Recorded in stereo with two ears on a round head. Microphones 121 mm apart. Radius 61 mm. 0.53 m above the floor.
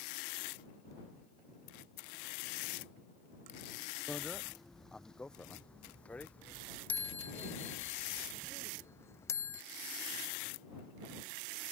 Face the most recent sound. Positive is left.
turn(degrees=20)  # may be behind; listen again after turning